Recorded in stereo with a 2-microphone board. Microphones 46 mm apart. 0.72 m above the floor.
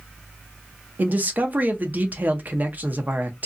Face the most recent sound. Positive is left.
turn(degrees=-35)  # may be behind; listen again after turning